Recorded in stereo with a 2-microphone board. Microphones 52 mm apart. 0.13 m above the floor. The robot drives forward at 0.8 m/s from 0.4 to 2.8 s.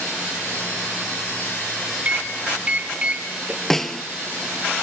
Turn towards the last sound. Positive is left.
turn(degrees=10)  # may be behind; listen again after turning